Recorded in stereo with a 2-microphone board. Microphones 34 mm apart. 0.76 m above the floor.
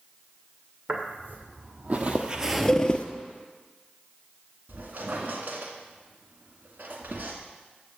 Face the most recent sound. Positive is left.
turn(degrees=-65)  # may be behind; listen again after turning